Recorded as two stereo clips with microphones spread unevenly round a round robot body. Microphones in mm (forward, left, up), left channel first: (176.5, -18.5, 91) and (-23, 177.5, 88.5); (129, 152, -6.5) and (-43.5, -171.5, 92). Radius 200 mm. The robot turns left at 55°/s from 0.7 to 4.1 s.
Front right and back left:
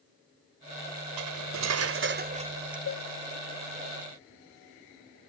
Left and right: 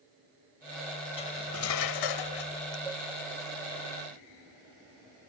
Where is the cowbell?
15° right; by 3.1 s 25° right.